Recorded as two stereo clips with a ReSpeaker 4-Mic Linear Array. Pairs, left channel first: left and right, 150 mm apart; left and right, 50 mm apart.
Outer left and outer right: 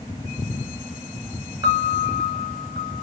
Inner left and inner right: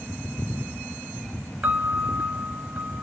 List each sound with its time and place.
1.6 s a piano: 30° right (ahead or behind), 0.6 m